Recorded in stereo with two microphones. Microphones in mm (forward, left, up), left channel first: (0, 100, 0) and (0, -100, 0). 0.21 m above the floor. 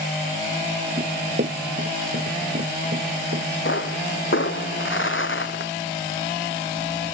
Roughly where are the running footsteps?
Right.